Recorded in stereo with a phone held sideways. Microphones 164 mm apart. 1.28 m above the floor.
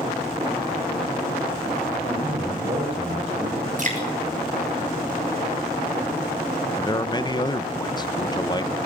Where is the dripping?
50° right (ahead or behind), 6.5 m.